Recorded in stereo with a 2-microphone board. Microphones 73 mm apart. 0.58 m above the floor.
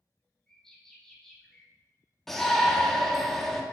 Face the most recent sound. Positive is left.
turn(degrees=5)  # may be behind; listen again after turning